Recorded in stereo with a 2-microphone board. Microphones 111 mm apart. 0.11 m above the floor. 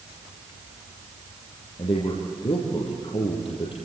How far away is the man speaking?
About 3.5 m.